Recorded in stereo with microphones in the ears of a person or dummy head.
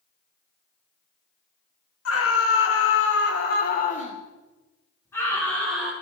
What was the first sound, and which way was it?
A scream, 75° left (ahead or behind).